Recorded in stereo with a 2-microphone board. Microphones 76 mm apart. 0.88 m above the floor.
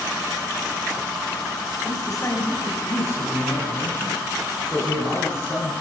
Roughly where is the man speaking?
Left.